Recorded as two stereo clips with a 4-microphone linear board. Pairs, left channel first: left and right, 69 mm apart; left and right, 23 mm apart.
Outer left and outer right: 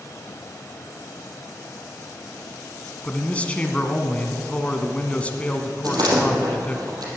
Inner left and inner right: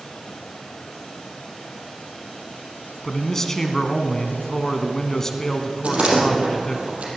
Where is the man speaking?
20° left (ahead or behind), 1.8 m.